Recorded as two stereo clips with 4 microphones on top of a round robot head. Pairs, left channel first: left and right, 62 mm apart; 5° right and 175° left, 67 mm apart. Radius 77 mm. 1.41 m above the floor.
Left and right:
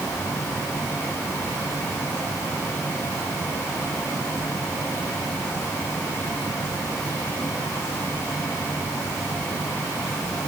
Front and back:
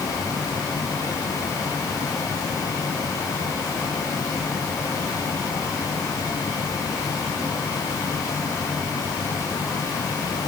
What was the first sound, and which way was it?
Only background noise.